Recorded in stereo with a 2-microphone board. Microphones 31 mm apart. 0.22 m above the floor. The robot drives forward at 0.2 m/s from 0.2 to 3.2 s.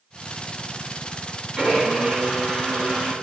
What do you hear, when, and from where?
1.6 s a blender: 30° right (ahead or behind), 1.6 m